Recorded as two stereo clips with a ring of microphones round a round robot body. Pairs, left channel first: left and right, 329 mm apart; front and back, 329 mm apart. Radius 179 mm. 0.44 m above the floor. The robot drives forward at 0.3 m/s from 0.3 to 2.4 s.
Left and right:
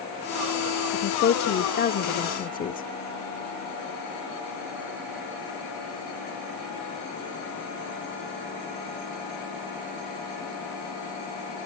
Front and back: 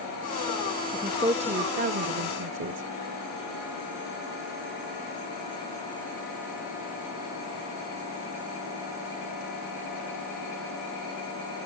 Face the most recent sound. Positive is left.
turn(degrees=145)